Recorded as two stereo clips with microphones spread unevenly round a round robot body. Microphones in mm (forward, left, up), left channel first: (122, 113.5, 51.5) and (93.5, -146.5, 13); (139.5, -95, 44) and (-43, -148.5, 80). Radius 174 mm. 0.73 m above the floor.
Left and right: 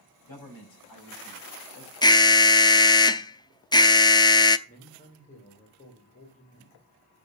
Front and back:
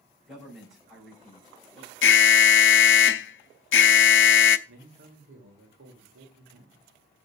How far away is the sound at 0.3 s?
About 5 m.